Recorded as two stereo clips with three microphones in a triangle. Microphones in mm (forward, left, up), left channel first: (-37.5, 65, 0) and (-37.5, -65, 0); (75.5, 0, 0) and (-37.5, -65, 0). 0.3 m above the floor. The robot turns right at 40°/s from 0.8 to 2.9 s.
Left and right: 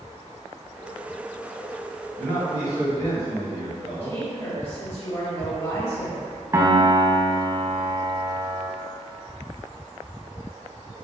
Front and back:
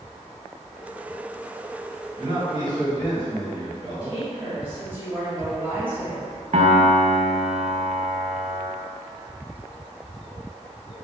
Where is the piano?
155° right, 0.5 m.